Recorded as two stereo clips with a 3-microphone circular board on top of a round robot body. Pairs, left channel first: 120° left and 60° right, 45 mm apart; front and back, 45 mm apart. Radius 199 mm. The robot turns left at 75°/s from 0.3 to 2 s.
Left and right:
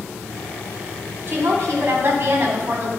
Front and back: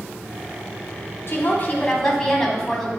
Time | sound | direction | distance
1.3 | a woman speaking | 25° right | 1.8 m